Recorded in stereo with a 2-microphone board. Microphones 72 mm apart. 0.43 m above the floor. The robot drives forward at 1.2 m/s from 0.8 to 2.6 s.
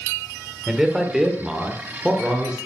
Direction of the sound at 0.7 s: 5° right (ahead or behind).